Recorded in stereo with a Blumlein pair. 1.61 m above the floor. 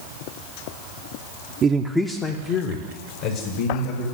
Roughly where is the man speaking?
Ahead right.